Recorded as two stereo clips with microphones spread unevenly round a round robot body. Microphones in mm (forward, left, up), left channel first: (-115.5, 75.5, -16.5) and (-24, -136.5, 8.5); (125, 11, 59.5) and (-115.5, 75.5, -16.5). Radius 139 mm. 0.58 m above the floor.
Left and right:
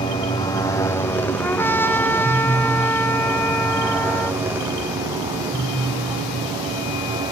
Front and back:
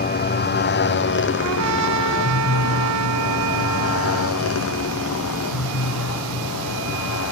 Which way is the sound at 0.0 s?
35° left.